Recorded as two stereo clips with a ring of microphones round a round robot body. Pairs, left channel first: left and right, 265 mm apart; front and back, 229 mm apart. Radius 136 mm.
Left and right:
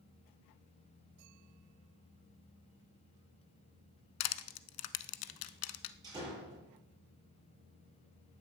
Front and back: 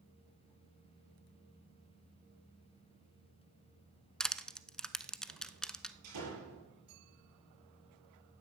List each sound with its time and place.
4.2 s crushing: 90° left, 0.9 m
6.0 s a door slam: 165° right, 8 m